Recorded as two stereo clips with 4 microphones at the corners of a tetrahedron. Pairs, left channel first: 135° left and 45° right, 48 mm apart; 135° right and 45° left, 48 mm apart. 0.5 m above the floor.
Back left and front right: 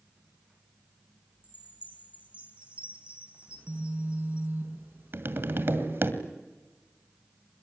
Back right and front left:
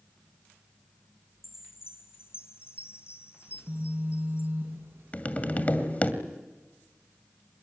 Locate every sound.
1.4 s a chime: 110° right, 3.5 m
3.5 s a phone buzzing: 5° left, 6.5 m
5.1 s tapping: 80° right, 2 m